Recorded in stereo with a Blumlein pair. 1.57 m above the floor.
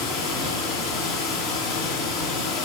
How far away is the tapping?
I don't hear tapping.